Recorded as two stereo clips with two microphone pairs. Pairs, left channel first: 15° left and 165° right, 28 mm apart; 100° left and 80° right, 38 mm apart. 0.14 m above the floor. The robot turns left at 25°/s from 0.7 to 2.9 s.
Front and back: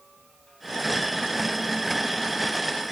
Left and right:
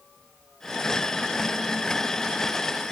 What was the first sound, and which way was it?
Only background noise.